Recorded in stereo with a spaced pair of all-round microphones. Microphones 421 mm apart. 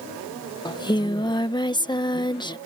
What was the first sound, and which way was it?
Singing, 10° left (ahead or behind).